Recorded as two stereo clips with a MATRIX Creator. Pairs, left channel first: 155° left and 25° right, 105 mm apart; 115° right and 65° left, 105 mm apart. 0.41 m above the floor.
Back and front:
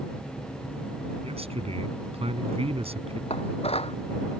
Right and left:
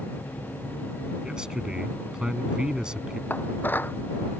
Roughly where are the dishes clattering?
Behind.